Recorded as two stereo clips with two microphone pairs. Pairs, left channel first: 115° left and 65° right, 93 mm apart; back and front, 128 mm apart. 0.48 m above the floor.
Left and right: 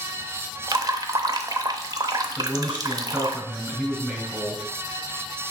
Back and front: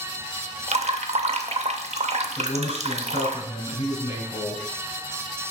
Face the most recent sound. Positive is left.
turn(degrees=-145)